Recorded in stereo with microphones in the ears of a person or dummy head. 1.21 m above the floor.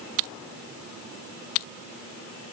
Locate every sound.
Only background noise.